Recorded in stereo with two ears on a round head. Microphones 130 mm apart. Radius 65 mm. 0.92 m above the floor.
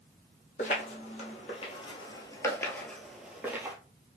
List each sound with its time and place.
0.6 s footsteps: 55° left (ahead or behind), 1.5 m; by 3.8 s 15° right (ahead or behind), 1.2 m